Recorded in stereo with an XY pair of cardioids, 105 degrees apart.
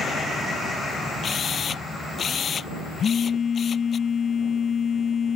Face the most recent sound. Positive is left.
turn(degrees=45)